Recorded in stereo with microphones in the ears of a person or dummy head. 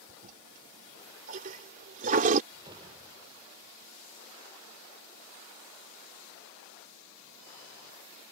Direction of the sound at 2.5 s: 30° right (ahead or behind).